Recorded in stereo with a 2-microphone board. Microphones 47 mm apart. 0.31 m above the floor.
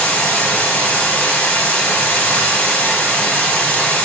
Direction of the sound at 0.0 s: 30° left (ahead or behind).